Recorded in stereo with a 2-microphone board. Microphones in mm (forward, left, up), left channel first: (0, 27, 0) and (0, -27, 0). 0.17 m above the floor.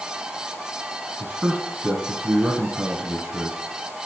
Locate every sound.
1.2 s a man speaking: 20° right (ahead or behind), 1.4 m